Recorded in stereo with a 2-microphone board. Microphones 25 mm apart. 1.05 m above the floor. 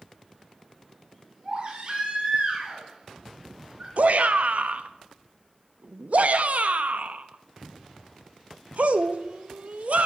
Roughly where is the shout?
Right.